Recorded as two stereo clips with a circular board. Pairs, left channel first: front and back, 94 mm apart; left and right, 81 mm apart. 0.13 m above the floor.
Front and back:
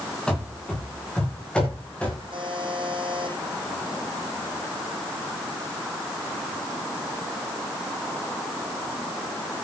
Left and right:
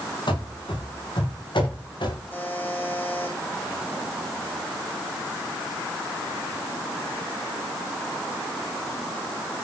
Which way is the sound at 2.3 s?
155° left.